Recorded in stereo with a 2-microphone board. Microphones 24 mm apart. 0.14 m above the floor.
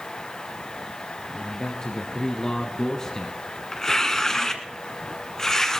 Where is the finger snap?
I don't hear a finger snap.